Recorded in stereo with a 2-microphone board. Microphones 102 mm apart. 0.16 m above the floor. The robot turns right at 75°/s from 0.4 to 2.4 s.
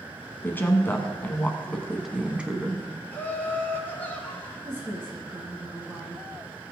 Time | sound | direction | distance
0.4 | a woman speaking | 20° left (ahead or behind) | 1.0 m
3.1 | laughter | 20° left (ahead or behind) | 1.3 m
4.7 | a woman speaking | 20° right (ahead or behind) | 1.7 m